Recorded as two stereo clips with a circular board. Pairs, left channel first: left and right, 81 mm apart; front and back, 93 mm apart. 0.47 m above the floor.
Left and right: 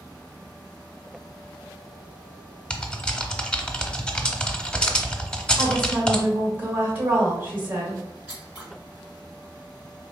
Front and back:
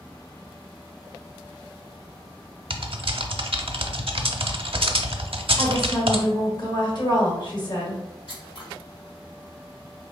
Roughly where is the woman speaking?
Ahead right.